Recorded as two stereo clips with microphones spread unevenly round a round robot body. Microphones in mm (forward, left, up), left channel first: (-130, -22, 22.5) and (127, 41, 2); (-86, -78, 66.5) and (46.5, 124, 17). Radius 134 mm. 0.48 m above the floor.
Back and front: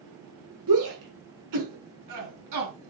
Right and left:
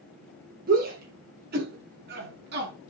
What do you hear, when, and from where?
0.7 s a shout: 5° left, 6.5 m; by 2.7 s 10° left, 5.5 m